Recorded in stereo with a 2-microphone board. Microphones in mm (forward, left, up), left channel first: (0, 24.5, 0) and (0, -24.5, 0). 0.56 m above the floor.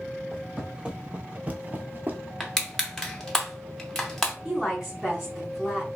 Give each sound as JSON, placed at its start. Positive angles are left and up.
{"t": 0.3, "sound": "footsteps", "side_deg": -15, "distance_m": 1.0}
{"t": 2.4, "sound": "crushing", "side_deg": 10, "distance_m": 0.7}
{"t": 4.5, "sound": "a woman speaking", "side_deg": -15, "distance_m": 1.4}